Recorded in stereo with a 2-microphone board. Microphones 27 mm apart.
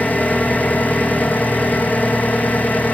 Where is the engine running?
85° left, 3 m.